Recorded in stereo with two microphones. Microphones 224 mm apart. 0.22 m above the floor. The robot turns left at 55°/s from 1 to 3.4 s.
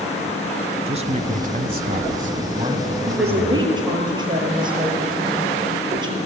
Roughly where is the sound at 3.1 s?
Right.